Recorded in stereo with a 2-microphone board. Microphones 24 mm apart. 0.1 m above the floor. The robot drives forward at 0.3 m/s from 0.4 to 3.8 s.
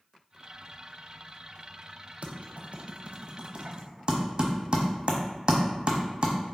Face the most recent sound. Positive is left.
turn(degrees=-45)  # may be behind; listen again after turning